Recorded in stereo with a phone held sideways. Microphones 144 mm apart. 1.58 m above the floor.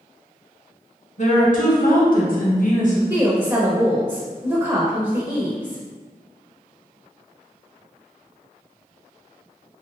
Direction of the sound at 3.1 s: 25° right (ahead or behind).